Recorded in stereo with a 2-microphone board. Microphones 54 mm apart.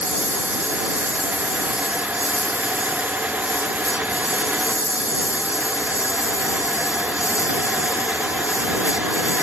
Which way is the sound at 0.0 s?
70° left (ahead or behind).